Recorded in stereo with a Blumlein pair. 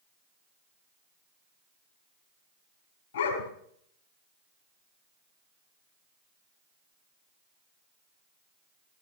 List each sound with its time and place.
3.1 s a dog barking: 65° left, 3.5 m